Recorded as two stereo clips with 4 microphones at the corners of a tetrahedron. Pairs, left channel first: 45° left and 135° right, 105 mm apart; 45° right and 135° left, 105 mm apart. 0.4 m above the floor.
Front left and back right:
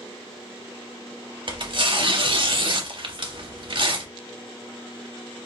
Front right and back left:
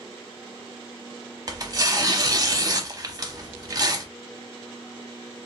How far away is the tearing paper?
About 0.5 m.